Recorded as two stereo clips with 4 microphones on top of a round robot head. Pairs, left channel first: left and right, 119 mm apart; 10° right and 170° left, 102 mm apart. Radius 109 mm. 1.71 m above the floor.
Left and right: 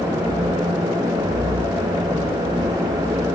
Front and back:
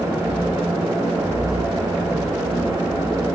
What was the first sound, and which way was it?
Only background noise.